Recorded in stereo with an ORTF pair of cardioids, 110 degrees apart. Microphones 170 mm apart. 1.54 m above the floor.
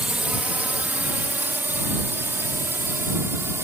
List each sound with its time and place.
0.0 s a drone: 5° right; by 3.7 s 15° right